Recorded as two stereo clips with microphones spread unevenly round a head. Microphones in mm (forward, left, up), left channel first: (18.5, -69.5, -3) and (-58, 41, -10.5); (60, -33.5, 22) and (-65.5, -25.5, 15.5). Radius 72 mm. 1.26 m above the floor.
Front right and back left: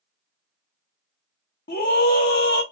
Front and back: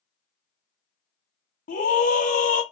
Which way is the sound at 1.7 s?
25° right.